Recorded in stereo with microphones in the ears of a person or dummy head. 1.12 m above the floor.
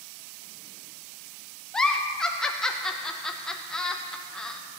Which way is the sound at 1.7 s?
Centre (ahead or behind).